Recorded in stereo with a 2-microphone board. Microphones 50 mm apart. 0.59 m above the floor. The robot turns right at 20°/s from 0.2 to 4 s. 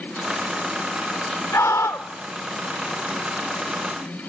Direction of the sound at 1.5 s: 55° left (ahead or behind).